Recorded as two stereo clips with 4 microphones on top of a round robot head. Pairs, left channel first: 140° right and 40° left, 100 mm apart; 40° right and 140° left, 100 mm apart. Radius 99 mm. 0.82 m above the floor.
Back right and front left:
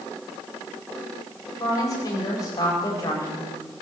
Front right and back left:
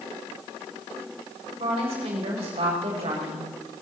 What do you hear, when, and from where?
1.6 s a woman speaking: 165° left, 4.5 m